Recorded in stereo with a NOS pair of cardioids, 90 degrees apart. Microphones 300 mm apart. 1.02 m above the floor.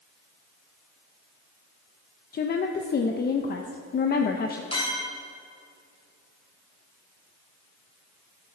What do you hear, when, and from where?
2.3 s a woman speaking: 30° left, 0.5 m
4.7 s a clink: 20° left, 2.5 m